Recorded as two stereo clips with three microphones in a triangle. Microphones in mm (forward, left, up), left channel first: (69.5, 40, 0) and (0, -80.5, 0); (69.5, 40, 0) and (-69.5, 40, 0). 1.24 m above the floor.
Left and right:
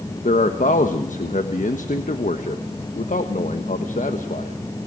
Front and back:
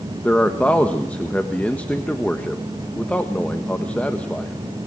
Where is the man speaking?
80° left, 1.4 m.